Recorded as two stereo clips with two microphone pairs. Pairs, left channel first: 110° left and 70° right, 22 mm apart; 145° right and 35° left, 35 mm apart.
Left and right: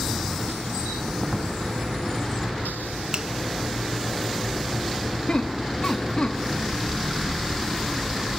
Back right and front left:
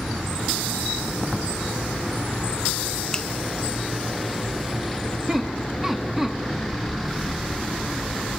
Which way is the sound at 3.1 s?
80° right.